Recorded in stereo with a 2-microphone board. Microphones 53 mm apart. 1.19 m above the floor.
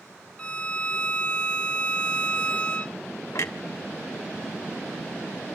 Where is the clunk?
70° left (ahead or behind), 1.7 m.